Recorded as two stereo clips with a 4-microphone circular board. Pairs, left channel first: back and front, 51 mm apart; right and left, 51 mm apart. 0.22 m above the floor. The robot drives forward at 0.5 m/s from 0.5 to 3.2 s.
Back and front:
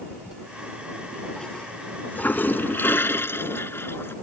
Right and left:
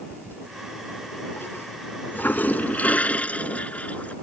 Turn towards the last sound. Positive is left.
turn(degrees=-150)